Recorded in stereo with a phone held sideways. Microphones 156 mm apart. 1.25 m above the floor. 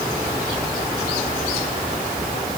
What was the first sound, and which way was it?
Only background noise.